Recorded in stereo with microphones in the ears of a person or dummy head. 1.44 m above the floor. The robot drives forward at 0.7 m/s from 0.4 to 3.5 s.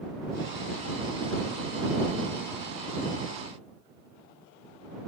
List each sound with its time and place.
Only background noise.